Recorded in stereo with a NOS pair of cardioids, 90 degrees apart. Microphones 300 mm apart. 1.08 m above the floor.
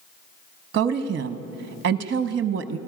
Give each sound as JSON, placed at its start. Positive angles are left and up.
{"t": 0.7, "sound": "a woman speaking", "azimuth_deg": -45, "distance_m": 0.6}